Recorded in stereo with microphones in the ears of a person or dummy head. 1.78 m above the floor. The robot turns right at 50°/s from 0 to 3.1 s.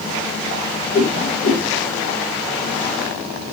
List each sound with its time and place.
0.9 s a whoosh: 25° right (ahead or behind), 1.0 m; by 1.6 s 35° right (ahead or behind), 1.0 m